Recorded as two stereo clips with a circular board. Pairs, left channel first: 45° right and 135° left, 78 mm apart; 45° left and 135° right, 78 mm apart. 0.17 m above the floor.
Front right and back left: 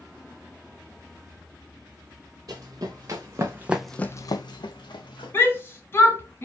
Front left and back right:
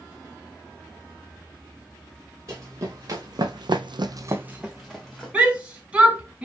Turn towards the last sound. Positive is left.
turn(degrees=-75)